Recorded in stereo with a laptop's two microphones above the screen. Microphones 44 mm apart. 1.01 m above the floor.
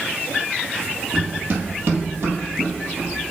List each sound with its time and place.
1.1 s running footsteps: 40° right (ahead or behind), 1.4 m; by 3.1 s 65° right (ahead or behind), 2 m